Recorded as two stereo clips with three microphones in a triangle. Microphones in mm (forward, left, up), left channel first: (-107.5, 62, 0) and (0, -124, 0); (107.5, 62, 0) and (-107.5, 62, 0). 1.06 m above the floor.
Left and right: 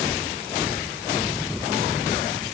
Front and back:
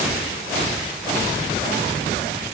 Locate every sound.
Only background noise.